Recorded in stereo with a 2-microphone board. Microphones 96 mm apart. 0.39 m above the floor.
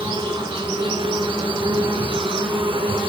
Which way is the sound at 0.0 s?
60° right (ahead or behind).